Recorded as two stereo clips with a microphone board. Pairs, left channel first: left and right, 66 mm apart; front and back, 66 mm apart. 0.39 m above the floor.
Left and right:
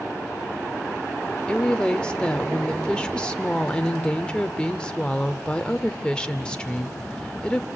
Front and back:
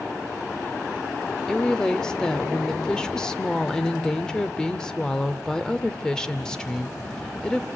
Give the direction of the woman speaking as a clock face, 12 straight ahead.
10 o'clock.